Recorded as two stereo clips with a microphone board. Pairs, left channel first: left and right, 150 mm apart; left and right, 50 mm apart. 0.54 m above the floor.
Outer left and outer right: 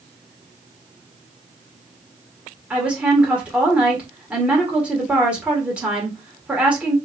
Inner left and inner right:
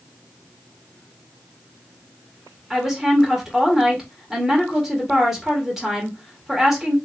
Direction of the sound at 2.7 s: 10° right (ahead or behind).